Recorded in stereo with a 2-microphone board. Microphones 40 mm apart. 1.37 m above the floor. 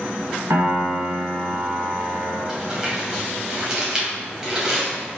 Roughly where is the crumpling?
Centre.